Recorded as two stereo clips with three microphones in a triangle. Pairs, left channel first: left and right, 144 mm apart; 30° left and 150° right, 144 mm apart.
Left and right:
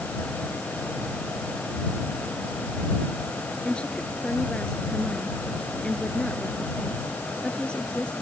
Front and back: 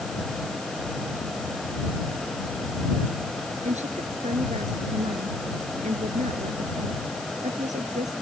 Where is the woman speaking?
175° left.